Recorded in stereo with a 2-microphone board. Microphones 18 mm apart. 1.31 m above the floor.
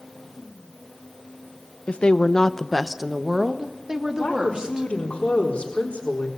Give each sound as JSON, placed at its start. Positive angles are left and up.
{"t": 1.9, "sound": "a woman speaking", "side_deg": 65, "distance_m": 1.1}
{"t": 4.2, "sound": "a woman speaking", "side_deg": 70, "distance_m": 4.0}